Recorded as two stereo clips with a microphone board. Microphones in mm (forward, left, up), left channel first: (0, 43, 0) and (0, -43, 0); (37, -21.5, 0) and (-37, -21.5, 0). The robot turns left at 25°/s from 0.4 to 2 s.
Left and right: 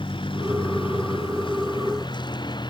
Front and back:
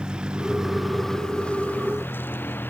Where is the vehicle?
100° left; by 2.7 s 60° left.